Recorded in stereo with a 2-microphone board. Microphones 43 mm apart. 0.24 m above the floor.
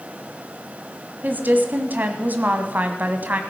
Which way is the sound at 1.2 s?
45° right (ahead or behind).